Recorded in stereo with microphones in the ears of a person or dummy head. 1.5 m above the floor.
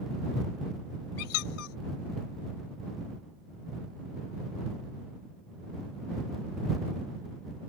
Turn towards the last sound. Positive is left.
turn(degrees=80)